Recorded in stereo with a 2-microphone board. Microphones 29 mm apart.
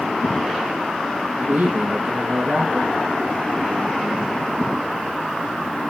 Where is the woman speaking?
60° right (ahead or behind), 4 m.